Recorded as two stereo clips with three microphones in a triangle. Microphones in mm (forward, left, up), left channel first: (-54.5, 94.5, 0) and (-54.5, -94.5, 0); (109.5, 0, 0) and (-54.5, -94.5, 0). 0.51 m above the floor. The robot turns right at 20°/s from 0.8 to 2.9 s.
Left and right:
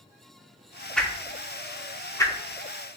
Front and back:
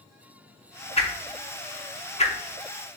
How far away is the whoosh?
About 0.7 m.